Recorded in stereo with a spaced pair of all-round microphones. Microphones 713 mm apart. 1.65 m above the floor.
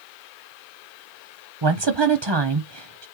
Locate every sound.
1.6 s a woman speaking: 40° right (ahead or behind), 0.7 m